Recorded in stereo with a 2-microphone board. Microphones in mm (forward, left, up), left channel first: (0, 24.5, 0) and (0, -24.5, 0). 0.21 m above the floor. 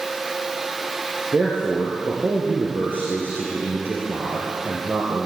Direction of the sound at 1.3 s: 45° right (ahead or behind).